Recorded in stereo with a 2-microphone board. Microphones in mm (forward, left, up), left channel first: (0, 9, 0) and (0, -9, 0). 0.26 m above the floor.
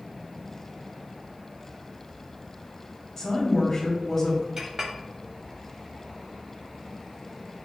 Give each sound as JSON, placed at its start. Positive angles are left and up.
{"t": 3.2, "sound": "a woman speaking", "side_deg": 15, "distance_m": 1.6}
{"t": 4.6, "sound": "a clink", "side_deg": -30, "distance_m": 0.7}